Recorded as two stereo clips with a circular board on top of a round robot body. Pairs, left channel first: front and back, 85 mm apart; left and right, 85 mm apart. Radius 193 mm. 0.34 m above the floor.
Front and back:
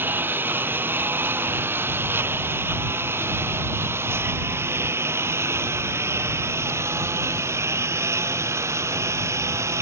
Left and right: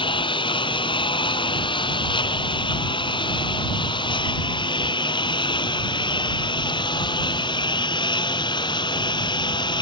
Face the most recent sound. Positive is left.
turn(degrees=125)